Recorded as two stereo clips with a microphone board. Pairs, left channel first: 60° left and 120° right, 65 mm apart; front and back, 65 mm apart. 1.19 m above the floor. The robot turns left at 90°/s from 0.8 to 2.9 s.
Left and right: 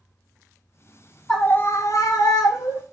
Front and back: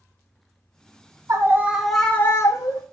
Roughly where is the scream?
Behind left.